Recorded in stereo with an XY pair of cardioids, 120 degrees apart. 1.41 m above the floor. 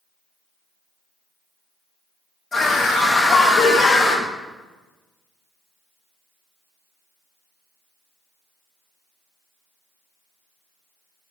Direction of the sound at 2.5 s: 30° left.